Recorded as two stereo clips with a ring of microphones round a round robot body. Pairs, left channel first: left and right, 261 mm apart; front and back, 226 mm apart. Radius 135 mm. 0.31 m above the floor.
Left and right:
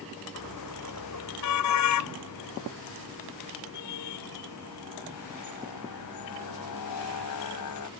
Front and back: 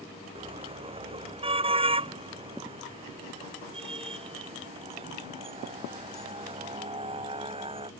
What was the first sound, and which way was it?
A car horn, 115° left.